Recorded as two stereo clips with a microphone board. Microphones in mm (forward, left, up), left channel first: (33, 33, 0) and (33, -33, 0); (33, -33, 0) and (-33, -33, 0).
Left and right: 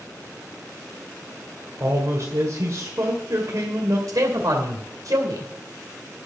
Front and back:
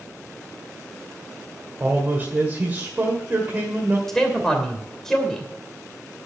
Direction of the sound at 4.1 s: 80° right.